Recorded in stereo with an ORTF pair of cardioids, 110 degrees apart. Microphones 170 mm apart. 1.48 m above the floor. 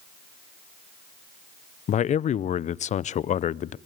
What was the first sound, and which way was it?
A man speaking, 45° left.